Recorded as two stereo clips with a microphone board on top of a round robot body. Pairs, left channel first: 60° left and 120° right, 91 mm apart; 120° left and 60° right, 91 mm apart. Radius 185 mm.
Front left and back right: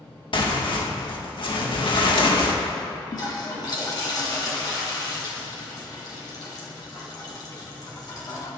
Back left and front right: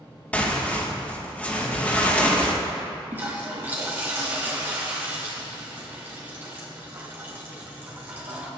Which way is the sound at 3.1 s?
10° left.